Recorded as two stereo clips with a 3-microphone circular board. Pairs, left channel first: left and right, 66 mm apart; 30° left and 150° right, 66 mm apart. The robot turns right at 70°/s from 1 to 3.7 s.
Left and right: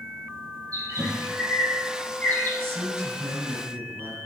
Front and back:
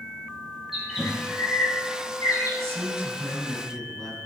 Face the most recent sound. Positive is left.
turn(degrees=-50)